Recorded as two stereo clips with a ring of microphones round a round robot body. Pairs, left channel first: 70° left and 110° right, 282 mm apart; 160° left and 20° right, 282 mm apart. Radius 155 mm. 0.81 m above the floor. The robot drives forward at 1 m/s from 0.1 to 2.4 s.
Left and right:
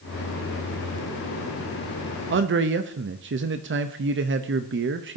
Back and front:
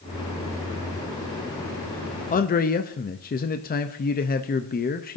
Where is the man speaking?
145° right, 0.6 m; by 5.2 s 150° right, 0.7 m.